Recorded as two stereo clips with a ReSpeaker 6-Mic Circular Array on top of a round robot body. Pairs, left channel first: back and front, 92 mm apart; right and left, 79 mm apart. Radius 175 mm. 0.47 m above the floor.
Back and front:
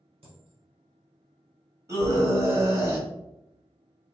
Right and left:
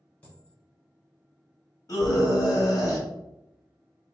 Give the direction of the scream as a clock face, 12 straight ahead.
2 o'clock.